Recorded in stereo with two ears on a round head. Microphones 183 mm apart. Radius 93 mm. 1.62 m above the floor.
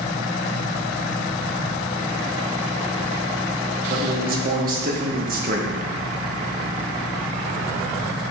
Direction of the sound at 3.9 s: 45° right (ahead or behind).